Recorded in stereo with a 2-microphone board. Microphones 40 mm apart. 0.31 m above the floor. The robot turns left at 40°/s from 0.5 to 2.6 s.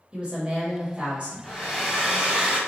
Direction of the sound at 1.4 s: 15° left.